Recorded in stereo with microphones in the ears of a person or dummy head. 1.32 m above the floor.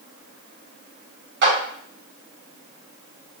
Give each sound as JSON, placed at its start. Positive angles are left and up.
{"t": 1.4, "sound": "a clap", "side_deg": -55, "distance_m": 1.4}